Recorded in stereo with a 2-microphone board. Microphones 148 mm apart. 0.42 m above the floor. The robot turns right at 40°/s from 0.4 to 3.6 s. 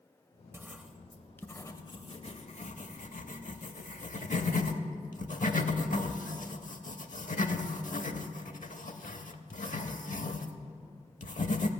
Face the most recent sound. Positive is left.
turn(degrees=70)  # may be behind; listen again after turning